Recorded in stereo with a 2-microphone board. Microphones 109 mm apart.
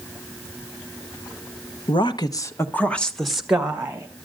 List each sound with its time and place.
1.9 s a woman speaking: 55° left (ahead or behind), 1.1 m; by 4.1 s 15° right (ahead or behind), 1.8 m